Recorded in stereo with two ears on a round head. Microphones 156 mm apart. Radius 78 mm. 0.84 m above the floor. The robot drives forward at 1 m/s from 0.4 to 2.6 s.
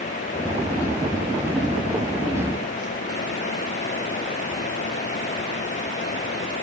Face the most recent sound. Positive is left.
No sound to turn to.